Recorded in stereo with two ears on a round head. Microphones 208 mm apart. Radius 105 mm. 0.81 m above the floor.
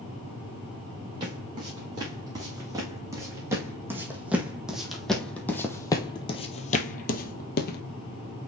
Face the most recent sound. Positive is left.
turn(degrees=45)  # may be behind; listen again after turning